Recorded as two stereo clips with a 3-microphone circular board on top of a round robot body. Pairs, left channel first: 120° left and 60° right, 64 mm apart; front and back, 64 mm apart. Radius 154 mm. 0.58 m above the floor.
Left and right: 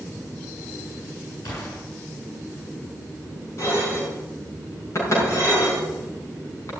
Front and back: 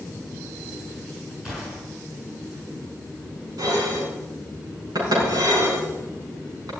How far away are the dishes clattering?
About 5.5 m.